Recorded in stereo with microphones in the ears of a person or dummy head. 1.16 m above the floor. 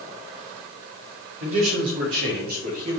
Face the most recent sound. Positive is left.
turn(degrees=-35)  # may be behind; listen again after turning